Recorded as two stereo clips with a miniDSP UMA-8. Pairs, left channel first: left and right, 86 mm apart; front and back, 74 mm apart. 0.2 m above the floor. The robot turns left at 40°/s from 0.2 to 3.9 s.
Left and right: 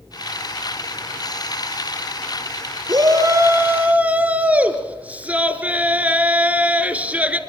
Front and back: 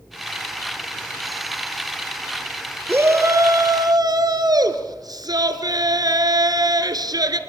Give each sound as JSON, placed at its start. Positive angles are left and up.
{"t": 2.9, "sound": "a shout", "azimuth_deg": -120, "distance_m": 2.5}